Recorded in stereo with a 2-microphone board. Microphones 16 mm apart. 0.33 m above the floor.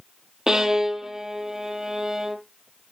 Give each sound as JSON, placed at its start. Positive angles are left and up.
{"t": 0.5, "sound": "a violin", "side_deg": -35, "distance_m": 1.5}